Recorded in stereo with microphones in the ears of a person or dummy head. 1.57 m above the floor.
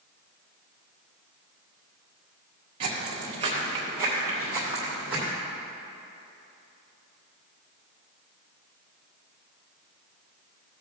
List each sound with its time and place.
2.8 s footsteps: 30° right (ahead or behind), 1.8 m; by 5.3 s 5° right (ahead or behind), 3 m